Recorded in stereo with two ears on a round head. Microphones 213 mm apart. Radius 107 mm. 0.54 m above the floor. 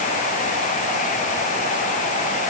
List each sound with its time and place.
Only background noise.